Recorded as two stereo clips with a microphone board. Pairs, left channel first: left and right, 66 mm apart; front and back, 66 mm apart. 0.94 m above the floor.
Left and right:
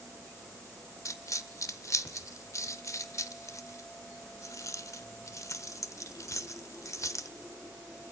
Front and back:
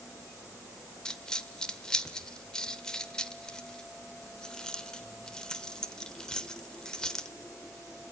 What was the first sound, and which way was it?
A dropped coin, 75° left.